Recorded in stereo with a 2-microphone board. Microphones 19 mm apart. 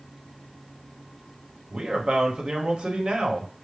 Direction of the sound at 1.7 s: 55° right (ahead or behind).